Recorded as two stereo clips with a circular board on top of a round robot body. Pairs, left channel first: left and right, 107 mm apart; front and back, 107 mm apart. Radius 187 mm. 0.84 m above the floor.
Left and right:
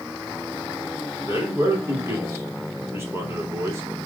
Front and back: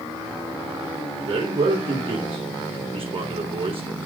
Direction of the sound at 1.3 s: 155° right.